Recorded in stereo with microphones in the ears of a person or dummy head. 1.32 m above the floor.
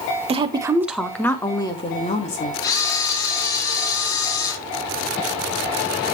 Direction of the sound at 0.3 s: 25° right (ahead or behind).